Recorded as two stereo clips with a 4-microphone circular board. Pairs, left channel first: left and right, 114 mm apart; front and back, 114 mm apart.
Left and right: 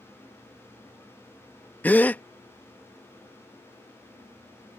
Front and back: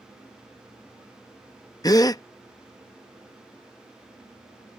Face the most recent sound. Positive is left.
turn(degrees=25)